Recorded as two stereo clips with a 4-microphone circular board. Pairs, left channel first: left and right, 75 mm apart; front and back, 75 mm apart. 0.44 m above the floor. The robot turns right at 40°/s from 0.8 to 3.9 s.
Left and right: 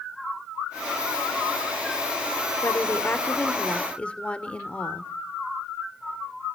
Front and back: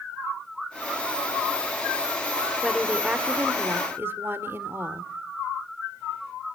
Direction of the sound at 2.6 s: 100° left.